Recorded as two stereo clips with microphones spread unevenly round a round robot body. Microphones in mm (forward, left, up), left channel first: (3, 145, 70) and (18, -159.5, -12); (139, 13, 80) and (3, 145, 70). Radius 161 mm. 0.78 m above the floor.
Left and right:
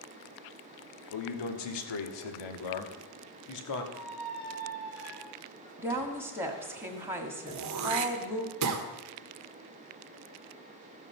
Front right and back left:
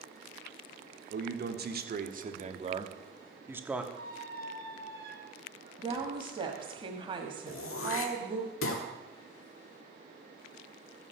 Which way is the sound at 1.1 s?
110° left.